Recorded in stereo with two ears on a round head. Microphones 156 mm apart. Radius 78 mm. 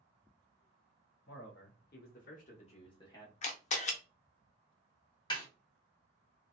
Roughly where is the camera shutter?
Left.